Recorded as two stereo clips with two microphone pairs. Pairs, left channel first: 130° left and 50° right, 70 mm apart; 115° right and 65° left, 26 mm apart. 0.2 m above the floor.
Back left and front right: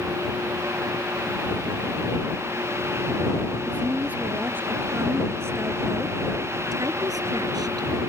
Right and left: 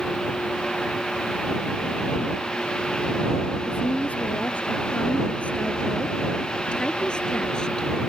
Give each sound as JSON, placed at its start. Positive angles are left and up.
{"t": 3.7, "sound": "a woman speaking", "azimuth_deg": -120}